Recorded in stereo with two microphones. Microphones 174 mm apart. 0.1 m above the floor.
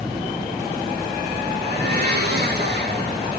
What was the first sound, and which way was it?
A blender, 65° right (ahead or behind).